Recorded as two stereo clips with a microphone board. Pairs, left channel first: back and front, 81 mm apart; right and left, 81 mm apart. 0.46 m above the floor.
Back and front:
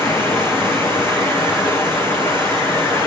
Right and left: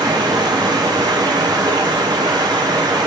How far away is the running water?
About 4.5 m.